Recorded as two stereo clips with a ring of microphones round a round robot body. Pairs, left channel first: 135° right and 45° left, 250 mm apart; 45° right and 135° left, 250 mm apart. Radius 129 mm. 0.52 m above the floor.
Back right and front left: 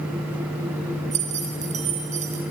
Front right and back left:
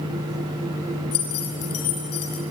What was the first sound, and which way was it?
Keys jangling, 15° right.